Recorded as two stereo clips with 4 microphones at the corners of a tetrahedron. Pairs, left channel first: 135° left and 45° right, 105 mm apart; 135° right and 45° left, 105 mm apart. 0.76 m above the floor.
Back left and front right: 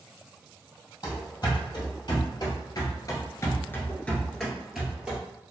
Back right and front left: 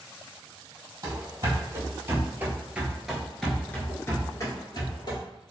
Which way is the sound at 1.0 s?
95° left.